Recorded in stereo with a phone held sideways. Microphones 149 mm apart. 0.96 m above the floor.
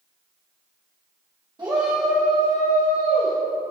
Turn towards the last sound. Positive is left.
turn(degrees=65)  # may be behind; listen again after turning